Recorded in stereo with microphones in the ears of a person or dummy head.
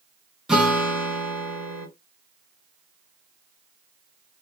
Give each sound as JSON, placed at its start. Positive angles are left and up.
{"t": 0.5, "sound": "a guitar", "side_deg": 0, "distance_m": 0.8}